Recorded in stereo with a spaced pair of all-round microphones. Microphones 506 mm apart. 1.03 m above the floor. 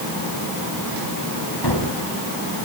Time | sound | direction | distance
1.6 | a gunshot | 50° left (ahead or behind) | 4 m